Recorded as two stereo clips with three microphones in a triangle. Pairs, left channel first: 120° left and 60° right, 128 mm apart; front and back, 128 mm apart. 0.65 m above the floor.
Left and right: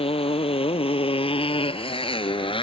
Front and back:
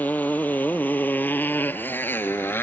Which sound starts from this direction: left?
A motorcycle, at 0.0 s.